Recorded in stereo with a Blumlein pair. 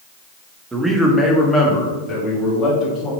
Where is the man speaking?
10° right, 1.5 m; by 3.1 s 25° left, 3.5 m.